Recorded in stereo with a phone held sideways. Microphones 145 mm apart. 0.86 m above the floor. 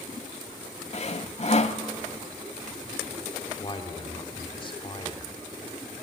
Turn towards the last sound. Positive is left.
turn(degrees=35)  # may be behind; listen again after turning